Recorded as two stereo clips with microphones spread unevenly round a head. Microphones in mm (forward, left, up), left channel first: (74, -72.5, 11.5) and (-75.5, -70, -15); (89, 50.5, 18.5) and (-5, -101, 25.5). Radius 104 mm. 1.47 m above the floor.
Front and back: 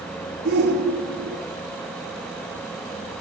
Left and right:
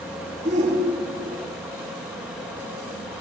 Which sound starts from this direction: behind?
A shout, at 0.5 s.